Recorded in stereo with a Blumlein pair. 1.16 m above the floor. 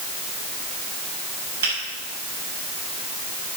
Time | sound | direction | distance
1.6 | a finger snap | 65° right | 7 m